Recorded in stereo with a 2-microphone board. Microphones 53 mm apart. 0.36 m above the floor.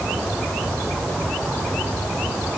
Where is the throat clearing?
I don't hear throat clearing.